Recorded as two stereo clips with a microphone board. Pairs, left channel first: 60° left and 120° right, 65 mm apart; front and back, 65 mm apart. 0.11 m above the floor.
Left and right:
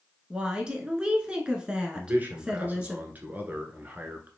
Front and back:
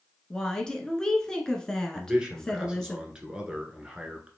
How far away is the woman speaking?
About 1.2 m.